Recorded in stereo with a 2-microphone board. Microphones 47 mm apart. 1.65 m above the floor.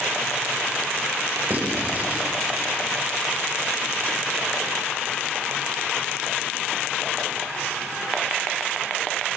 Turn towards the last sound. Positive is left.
turn(degrees=-45)  # may be behind; listen again after turning